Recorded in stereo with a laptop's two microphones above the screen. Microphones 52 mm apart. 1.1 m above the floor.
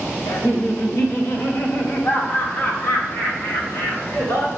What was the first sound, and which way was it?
Laughter, 70° left (ahead or behind).